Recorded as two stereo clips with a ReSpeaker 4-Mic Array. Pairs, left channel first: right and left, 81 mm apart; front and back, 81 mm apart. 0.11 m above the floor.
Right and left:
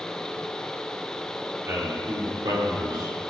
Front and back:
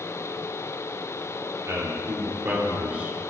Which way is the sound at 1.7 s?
140° left.